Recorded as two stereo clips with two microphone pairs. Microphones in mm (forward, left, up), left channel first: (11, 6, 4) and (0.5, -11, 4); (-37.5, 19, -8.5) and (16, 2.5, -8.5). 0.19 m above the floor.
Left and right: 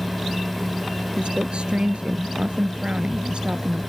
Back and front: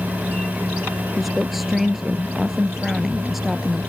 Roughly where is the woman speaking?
Right.